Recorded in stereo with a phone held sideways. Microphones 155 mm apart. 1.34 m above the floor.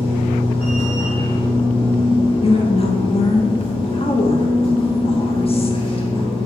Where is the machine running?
35° left (ahead or behind), 1.5 m.